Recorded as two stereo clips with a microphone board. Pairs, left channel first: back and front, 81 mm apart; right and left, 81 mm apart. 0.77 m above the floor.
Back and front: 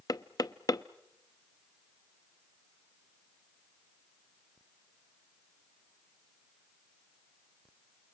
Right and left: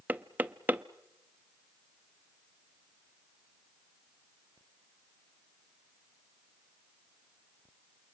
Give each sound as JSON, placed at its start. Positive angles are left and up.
{"t": 0.1, "sound": "knocking", "azimuth_deg": 155, "distance_m": 0.6}